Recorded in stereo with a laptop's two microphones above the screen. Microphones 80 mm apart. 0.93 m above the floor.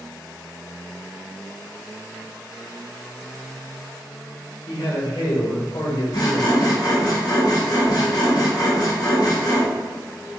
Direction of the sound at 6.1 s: 55° left (ahead or behind).